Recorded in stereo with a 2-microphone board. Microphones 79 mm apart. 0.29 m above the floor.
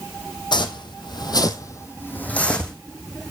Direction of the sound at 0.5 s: 75° left (ahead or behind).